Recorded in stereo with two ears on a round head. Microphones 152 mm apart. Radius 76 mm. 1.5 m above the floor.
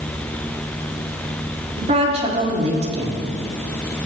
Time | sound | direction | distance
1.8 | a woman speaking | 40° right (ahead or behind) | 4 m